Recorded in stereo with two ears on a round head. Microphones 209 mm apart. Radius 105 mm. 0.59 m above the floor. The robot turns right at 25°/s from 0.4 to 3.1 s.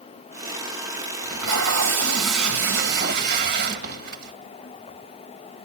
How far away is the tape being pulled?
About 1.9 m.